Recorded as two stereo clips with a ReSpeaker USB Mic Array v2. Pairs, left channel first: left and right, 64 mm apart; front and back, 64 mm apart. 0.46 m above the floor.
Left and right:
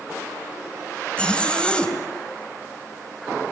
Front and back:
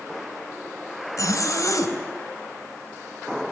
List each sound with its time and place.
1.2 s a zipper: 20° left, 3 m